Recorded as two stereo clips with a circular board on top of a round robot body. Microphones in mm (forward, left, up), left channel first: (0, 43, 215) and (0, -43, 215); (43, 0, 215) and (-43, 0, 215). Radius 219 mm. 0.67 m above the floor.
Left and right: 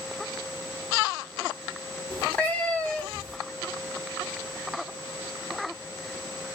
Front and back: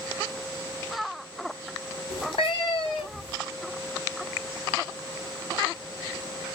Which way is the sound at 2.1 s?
15° left.